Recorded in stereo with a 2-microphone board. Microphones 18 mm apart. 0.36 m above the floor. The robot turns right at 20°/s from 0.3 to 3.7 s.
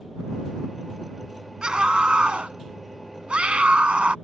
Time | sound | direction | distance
1.6 | a scream | 130° right | ?